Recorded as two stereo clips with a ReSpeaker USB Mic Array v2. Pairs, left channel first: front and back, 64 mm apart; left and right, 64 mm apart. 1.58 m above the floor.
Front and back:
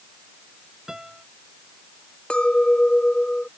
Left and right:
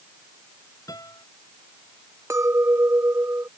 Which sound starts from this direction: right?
A clink, at 2.3 s.